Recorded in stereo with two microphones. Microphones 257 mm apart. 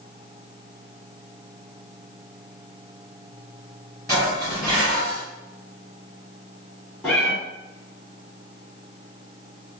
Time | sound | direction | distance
4.1 | dishes clattering | 15° left (ahead or behind) | 1.9 m
7.0 | a cat meowing | 10° left (ahead or behind) | 1.7 m